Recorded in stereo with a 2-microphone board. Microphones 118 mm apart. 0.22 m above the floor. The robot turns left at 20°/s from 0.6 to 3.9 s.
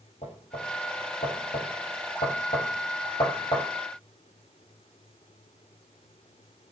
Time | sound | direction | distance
0.2 | knocking | 75° left (ahead or behind) | 6 m